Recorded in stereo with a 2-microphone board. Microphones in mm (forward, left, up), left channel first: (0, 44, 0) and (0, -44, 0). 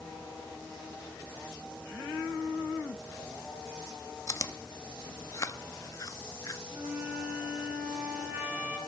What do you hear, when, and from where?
4.3 s chewing: 35° left (ahead or behind), 0.6 m
6.7 s a flute: 25° right (ahead or behind), 7 m